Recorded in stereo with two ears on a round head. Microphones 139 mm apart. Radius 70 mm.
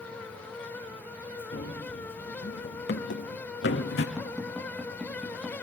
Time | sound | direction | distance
1.5 | running footsteps | 75° left (ahead or behind) | 5 m
4.2 | tapping | 5° right (ahead or behind) | 6 m